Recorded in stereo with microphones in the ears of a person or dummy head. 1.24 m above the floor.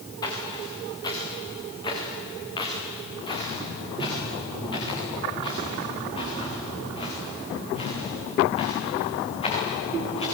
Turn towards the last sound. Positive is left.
turn(degrees=35)  # may be behind; listen again after turning